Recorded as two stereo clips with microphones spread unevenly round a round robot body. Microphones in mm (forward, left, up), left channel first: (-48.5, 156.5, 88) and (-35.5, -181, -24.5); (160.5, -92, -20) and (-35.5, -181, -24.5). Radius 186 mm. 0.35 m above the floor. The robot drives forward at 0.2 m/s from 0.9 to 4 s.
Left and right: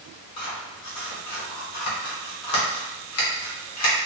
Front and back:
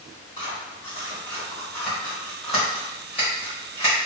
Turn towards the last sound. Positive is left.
turn(degrees=140)